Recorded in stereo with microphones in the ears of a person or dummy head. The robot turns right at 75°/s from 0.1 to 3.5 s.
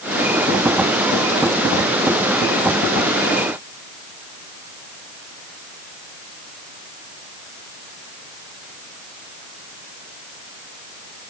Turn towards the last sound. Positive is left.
No sound to turn to.